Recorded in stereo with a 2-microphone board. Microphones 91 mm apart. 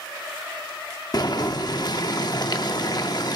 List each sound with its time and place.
1.1 s boiling: 50° left (ahead or behind), 0.7 m